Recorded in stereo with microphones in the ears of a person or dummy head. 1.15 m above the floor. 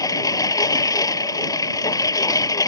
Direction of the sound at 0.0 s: 15° left (ahead or behind).